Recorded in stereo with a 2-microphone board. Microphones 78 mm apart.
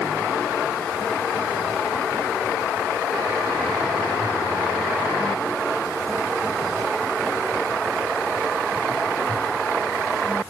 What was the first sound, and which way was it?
Only background noise.